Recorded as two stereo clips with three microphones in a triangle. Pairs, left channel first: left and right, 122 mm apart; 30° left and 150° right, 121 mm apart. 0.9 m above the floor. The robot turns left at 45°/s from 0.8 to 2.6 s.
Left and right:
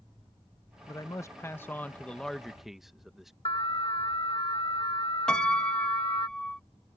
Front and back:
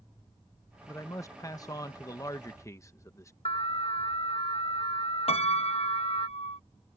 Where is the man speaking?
75° left; by 3.3 s 5° right.